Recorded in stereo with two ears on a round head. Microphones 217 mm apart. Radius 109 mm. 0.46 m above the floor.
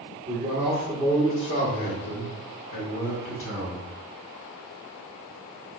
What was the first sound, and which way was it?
A man speaking, 25° right (ahead or behind).